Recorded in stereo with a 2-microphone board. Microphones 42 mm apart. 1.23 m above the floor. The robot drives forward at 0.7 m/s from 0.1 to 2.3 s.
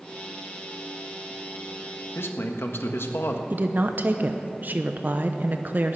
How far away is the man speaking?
About 1.2 m.